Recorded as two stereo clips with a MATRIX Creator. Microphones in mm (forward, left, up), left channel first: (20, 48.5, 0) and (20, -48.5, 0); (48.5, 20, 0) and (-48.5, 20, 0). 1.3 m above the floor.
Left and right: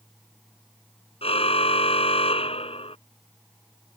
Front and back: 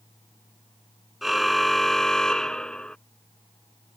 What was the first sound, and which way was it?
A car horn, 90° left.